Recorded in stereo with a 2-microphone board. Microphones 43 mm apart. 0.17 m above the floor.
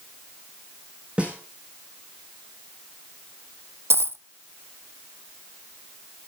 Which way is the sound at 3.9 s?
75° right (ahead or behind).